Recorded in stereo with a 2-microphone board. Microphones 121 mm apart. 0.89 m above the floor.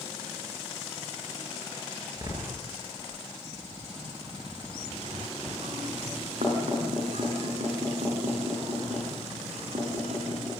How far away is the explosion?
About 3.5 m.